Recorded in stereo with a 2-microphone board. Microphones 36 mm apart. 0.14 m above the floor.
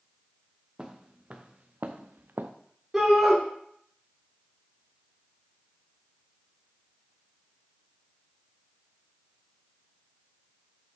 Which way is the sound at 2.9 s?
5° right (ahead or behind).